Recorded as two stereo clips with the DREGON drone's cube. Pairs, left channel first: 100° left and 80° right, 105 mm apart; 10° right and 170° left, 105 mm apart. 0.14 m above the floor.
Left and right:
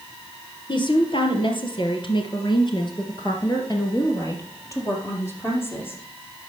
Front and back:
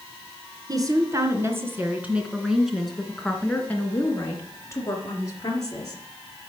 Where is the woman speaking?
125° left, 2.5 m; by 6.0 s 35° left, 3.5 m.